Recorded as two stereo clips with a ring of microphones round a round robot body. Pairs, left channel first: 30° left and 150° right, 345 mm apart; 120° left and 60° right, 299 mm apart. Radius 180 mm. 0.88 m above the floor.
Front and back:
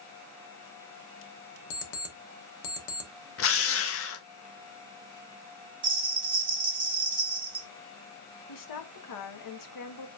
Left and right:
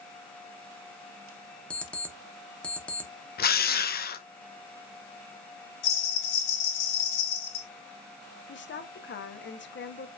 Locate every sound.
1.7 s an alarm clock: 35° left, 1.2 m
3.4 s a drill: 70° left, 0.8 m
5.8 s a bell: 135° left, 1.6 m
8.5 s a woman speaking: 65° left, 1.0 m